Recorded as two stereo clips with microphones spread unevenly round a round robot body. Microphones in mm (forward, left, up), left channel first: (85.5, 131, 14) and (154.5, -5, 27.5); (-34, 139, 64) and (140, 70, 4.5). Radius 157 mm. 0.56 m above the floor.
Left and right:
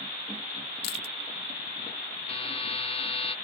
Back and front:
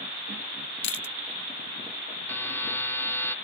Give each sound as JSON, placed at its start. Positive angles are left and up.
{"t": 0.8, "sound": "chewing", "azimuth_deg": 145}
{"t": 2.3, "sound": "a buzzer", "azimuth_deg": 70}